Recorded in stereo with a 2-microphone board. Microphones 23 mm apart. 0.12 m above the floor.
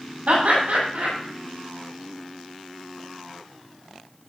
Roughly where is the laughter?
Right.